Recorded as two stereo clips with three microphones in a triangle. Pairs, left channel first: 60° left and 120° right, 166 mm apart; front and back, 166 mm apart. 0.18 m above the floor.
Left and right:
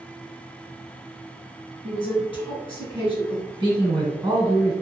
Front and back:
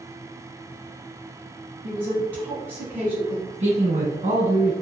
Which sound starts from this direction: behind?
A man speaking, at 3.6 s.